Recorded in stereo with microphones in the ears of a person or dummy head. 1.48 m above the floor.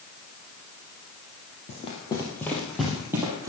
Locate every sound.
1.7 s running footsteps: 35° left (ahead or behind), 2.5 m; by 3.5 s 15° right (ahead or behind), 3 m